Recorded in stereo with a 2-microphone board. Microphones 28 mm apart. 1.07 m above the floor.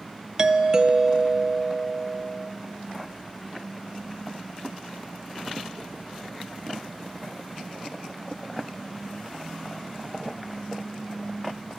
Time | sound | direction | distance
0.4 | a doorbell | 25° right (ahead or behind) | 0.8 m